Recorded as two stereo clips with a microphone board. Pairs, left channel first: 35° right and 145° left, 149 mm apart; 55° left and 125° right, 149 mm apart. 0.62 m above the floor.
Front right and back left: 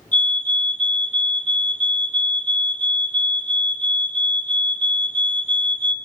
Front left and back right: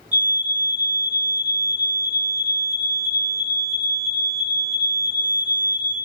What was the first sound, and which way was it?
A fire alarm, 50° right.